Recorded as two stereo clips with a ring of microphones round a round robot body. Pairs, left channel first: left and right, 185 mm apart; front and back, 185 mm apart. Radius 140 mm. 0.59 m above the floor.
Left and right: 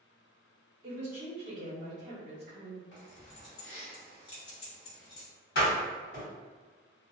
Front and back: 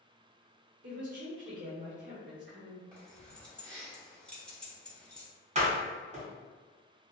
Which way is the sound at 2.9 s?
85° left.